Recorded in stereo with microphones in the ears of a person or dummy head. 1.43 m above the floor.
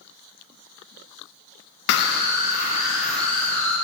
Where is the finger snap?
No finger snap in this recording.